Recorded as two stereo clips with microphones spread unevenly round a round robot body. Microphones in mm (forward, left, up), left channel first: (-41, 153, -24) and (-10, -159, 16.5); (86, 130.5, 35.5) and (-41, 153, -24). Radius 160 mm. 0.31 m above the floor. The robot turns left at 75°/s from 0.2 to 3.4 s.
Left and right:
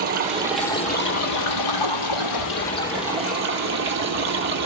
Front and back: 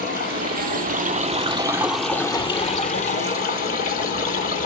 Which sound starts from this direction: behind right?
Running water, at 0.0 s.